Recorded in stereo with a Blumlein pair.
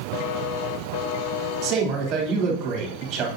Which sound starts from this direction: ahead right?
A man speaking, at 1.6 s.